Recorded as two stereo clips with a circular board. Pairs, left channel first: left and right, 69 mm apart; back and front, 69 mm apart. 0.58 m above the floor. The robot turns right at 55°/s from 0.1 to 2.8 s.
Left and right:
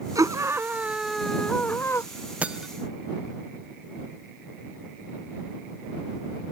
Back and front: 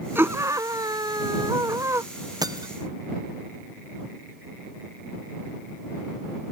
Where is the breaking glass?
20° right; by 2.7 s 5° right.